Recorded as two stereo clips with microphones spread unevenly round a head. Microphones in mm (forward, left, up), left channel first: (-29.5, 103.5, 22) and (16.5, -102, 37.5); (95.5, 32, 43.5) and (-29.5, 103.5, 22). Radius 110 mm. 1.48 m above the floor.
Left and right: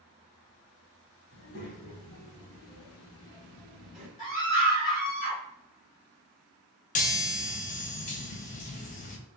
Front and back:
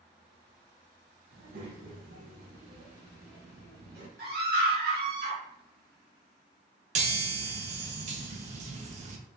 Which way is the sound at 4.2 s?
155° left.